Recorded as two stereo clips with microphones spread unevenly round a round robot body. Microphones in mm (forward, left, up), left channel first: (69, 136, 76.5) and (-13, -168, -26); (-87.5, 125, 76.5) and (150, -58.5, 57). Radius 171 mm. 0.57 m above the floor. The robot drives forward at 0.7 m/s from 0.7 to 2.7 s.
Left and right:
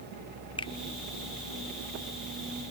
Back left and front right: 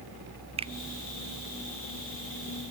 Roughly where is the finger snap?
Ahead right.